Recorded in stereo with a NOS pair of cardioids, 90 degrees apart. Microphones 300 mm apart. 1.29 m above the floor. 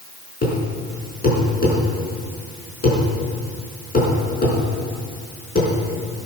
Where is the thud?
30° left, 4.5 m.